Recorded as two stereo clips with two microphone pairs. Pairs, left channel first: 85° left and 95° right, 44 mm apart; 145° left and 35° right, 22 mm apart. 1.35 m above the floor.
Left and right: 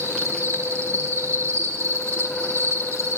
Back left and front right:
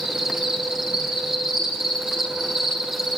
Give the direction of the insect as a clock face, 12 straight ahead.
3 o'clock.